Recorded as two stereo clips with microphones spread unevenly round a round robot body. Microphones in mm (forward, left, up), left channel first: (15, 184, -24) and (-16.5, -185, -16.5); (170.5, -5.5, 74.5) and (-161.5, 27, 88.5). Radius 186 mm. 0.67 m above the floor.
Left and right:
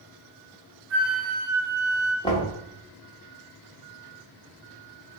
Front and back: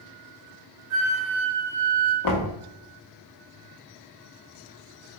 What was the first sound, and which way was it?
A flute, 140° right.